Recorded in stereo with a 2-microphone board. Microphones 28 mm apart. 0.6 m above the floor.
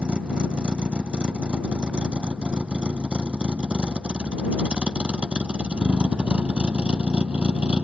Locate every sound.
0.0 s a vehicle: 40° right (ahead or behind); by 7.8 s 45° right (ahead or behind)